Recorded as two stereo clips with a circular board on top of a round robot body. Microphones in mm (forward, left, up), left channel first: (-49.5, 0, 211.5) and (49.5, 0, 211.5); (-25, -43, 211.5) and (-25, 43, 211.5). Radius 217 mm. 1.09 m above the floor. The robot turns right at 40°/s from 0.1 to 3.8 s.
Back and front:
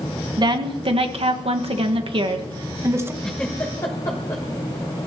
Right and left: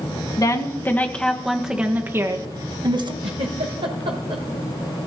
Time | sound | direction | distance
0.4 | a woman speaking | 45° right | 1.8 m
3.2 | a giggle | 95° left | 1.0 m